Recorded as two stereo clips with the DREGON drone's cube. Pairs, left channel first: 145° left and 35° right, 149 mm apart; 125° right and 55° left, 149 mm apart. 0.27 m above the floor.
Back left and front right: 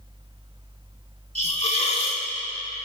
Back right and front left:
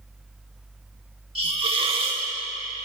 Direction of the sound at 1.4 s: 105° left.